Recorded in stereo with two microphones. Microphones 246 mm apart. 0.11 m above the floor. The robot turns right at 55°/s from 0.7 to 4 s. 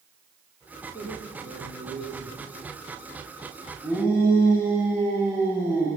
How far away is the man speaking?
About 9.5 m.